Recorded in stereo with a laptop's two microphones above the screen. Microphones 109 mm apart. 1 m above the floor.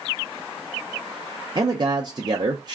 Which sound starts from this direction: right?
A man speaking, at 1.6 s.